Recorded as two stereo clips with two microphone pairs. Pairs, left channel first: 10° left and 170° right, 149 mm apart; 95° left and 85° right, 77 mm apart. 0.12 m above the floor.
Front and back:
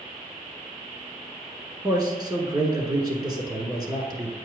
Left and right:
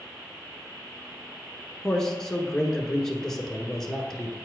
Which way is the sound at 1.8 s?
170° left.